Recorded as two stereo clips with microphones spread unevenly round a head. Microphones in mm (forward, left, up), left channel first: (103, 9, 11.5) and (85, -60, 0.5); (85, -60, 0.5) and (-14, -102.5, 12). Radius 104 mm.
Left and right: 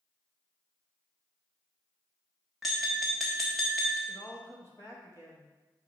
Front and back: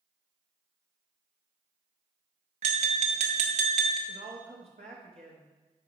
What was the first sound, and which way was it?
Tapping, 165° left.